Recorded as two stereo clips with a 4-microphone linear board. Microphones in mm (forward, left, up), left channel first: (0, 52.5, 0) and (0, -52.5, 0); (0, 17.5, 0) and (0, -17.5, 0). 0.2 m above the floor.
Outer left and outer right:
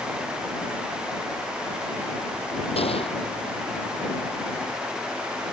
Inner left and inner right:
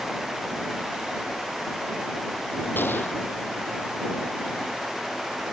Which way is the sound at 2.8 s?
65° left (ahead or behind).